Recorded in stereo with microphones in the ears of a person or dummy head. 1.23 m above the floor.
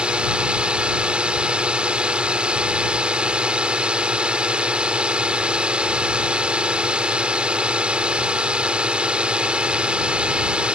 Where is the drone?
10° right (ahead or behind).